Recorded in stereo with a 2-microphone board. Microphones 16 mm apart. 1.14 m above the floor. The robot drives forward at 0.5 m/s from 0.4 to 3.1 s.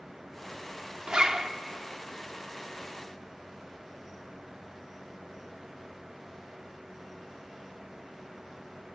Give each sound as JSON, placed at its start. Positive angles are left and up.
{"t": 1.1, "sound": "a zipper", "side_deg": -50, "distance_m": 1.1}